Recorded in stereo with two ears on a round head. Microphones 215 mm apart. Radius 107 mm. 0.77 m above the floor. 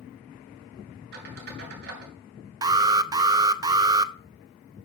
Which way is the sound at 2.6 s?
15° right (ahead or behind).